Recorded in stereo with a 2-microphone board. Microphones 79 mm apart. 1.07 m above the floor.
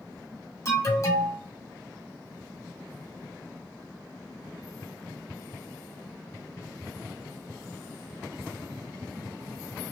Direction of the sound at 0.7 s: 45° left (ahead or behind).